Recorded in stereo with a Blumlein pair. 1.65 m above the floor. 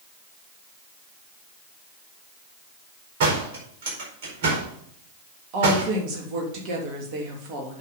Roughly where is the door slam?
Ahead right.